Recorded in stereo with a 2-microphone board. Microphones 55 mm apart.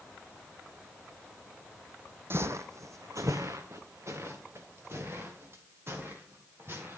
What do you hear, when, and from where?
2.3 s footsteps: 40° right (ahead or behind), 0.7 m; by 7.0 s 45° right (ahead or behind), 5 m